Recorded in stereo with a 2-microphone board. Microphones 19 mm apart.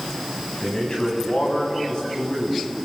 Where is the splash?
No splash in this recording.